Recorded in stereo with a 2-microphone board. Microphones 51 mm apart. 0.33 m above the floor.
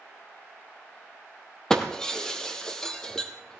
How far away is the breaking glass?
About 2 m.